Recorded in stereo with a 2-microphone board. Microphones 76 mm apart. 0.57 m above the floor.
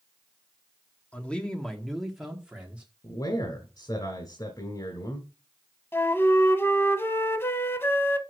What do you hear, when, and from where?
1.1 s a man speaking: 20° left (ahead or behind), 1.3 m; by 2.9 s 15° right (ahead or behind), 1.5 m
3.0 s a man speaking: 65° left (ahead or behind), 1.8 m
5.9 s a flute: 30° left (ahead or behind), 0.8 m